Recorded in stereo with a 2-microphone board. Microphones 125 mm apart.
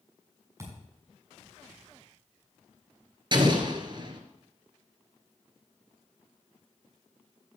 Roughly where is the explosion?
Right.